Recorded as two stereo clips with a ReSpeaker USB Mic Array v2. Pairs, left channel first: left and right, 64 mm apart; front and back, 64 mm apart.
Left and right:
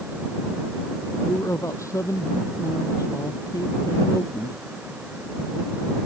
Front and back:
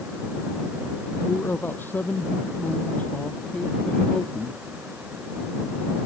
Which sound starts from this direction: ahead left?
A man speaking, at 1.2 s.